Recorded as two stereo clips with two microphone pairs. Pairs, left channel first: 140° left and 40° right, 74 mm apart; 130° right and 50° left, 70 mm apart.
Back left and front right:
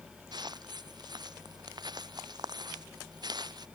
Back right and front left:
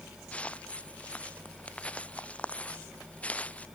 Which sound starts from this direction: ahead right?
Footsteps, at 0.3 s.